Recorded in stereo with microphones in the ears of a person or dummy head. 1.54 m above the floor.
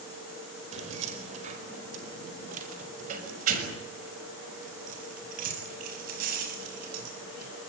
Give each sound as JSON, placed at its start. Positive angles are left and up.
{"t": 0.7, "sound": "keys jangling", "side_deg": -35, "distance_m": 4.5}